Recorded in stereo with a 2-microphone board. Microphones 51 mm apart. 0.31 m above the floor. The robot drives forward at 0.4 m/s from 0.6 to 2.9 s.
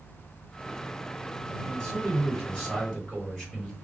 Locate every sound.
1.6 s a man speaking: 10° left (ahead or behind), 1.4 m